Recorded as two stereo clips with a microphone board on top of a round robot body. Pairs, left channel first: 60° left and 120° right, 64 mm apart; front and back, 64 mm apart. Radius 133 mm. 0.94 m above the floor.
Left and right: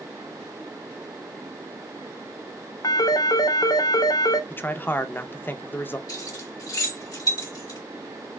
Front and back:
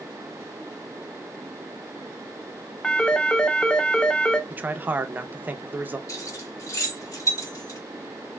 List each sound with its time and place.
2.8 s a phone ringing: 75° left, 0.6 m
4.5 s a man speaking: 115° left, 0.7 m
6.1 s keys jangling: 35° left, 2.5 m